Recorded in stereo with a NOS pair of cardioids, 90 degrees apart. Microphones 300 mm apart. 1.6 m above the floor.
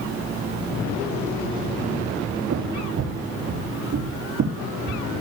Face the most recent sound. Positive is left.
turn(degrees=-65)